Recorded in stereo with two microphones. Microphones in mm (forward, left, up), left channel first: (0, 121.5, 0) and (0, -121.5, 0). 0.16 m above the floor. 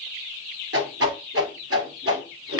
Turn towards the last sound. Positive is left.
turn(degrees=-70)  # may be behind; listen again after turning